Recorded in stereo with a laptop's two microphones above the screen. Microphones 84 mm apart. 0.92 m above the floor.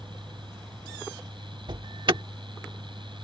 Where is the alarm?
70° right (ahead or behind).